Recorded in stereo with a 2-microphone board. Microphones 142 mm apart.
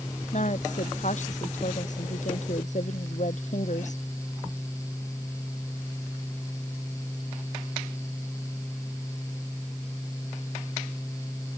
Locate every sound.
0.3 s a woman speaking: 60° left (ahead or behind)